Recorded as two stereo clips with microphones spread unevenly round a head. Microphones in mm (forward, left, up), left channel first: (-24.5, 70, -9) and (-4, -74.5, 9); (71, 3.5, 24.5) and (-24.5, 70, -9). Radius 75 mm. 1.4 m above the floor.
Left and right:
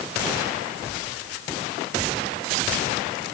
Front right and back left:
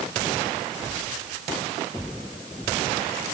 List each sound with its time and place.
Only background noise.